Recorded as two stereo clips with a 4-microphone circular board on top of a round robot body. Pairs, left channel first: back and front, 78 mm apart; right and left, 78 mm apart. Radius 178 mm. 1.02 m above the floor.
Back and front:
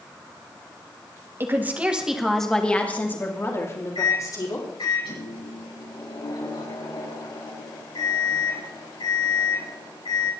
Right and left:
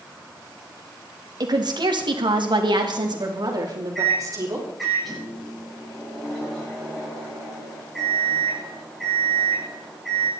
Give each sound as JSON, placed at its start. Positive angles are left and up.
{"t": 1.4, "sound": "a woman speaking", "azimuth_deg": 60, "distance_m": 2.5}
{"t": 4.0, "sound": "a microwave", "azimuth_deg": 180, "distance_m": 10.0}